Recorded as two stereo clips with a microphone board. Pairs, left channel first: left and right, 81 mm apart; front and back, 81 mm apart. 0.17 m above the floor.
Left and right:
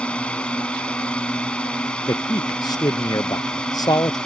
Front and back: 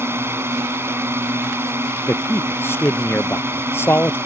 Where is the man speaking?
60° left.